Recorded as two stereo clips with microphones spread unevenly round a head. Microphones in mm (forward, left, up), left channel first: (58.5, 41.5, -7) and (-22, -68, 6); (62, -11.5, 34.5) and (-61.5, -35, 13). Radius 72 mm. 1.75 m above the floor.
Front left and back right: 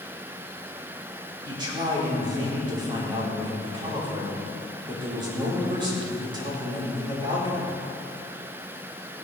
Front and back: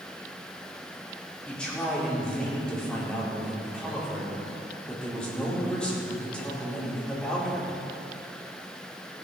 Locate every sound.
1.4 s a man speaking: 70° right, 4.5 m